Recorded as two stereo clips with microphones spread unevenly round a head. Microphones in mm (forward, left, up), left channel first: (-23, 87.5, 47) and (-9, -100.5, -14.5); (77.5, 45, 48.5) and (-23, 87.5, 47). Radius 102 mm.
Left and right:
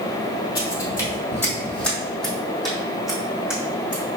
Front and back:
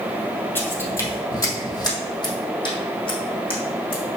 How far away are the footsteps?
About 1.9 m.